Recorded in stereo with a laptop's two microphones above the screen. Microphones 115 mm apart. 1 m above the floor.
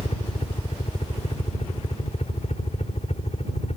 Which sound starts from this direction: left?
A helicopter, at 0.0 s.